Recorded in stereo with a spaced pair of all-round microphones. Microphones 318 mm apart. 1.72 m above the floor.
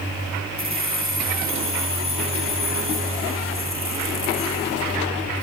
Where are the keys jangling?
40° right (ahead or behind), 1.1 m.